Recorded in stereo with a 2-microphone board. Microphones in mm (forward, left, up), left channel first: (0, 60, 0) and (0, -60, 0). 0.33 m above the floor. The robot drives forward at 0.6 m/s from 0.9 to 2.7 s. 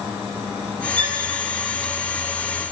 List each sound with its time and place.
1.0 s a violin: 50° right (ahead or behind), 6 m